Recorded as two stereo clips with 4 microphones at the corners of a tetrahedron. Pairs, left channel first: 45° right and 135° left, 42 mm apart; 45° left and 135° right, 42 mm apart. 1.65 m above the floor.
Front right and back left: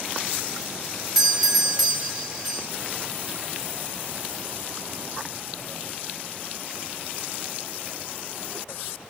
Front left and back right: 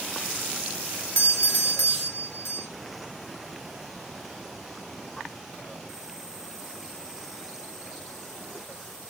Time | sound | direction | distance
1.1 | a doorbell | 50° left | 2.5 m